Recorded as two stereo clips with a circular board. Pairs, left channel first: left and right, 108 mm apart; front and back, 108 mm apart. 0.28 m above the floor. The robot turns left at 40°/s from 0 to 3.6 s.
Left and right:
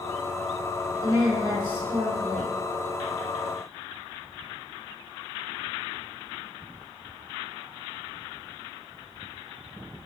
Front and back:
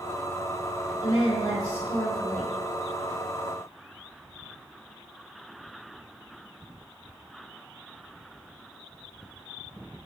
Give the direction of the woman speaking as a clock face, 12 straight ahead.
1 o'clock.